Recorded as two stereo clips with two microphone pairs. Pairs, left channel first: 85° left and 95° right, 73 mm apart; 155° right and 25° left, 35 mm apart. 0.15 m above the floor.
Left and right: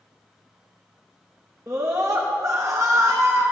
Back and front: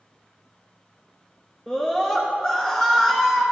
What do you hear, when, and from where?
1.7 s a scream: 105° right, 1.4 m